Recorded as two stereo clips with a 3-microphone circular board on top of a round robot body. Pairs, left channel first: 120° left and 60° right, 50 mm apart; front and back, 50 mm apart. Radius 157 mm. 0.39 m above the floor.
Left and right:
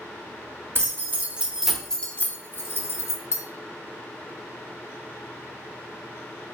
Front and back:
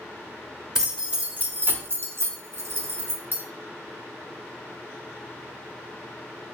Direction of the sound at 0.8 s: 100° right.